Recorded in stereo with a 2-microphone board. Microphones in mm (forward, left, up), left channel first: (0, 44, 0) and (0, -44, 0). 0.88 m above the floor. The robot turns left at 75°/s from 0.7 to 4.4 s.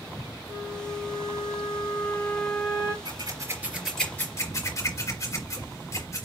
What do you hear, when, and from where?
0.5 s a flute: 135° left, 1.0 m; by 3.0 s 30° right, 1.0 m
3.0 s scissors: 65° right (ahead or behind), 3.5 m; by 6.3 s 35° left (ahead or behind), 3.5 m